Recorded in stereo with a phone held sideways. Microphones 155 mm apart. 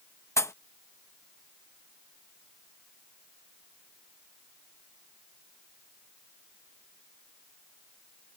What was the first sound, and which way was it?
A pop, 20° left (ahead or behind).